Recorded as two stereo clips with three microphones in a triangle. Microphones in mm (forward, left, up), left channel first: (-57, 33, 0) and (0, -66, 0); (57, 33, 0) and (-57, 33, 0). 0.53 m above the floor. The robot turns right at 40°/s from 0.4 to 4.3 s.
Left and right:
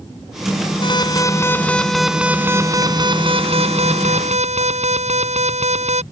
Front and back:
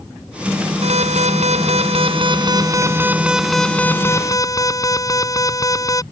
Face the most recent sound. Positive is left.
turn(degrees=-60)